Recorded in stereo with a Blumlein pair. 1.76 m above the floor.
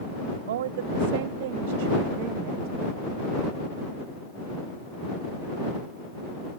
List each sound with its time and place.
0.5 s a woman speaking: 60° right; by 2.9 s 45° right